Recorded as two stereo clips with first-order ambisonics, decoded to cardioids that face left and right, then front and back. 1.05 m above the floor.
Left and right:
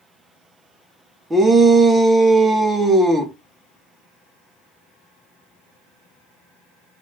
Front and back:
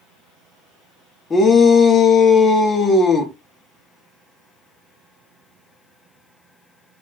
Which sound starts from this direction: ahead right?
A shout, at 1.3 s.